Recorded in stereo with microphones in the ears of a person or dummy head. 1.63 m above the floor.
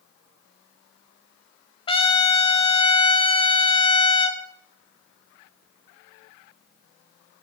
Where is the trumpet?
30° left (ahead or behind), 0.7 m.